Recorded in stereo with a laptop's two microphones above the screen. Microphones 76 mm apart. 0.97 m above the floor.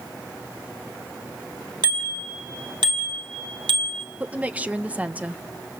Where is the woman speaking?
15° right (ahead or behind), 0.6 m.